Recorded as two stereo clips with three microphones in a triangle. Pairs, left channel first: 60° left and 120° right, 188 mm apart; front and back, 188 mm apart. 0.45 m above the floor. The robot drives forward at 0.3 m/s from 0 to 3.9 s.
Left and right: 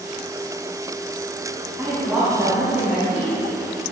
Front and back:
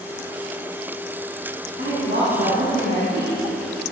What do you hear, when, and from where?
1.8 s a woman speaking: 155° left, 4 m; by 3.4 s 160° left, 4.5 m